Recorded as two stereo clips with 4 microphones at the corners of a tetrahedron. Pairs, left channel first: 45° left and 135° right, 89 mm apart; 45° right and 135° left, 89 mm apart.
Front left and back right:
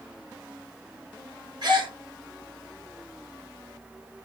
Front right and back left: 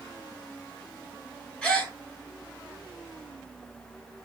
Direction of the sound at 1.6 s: 125° right.